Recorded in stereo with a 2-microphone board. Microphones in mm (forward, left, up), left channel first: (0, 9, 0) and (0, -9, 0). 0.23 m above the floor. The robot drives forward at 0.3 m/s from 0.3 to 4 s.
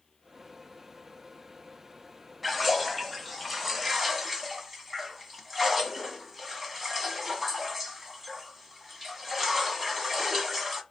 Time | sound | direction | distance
2.4 | a splash | centre (ahead or behind) | 0.6 m